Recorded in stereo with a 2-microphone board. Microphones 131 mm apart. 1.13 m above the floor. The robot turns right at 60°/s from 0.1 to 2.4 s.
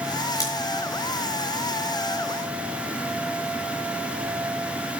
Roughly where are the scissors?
Left.